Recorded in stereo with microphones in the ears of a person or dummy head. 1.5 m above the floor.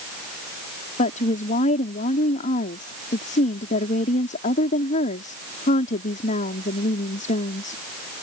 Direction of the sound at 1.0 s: 40° left (ahead or behind).